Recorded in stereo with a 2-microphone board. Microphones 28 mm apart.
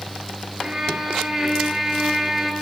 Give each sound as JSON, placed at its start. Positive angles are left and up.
{"t": 0.6, "sound": "a violin", "side_deg": -25, "distance_m": 1.5}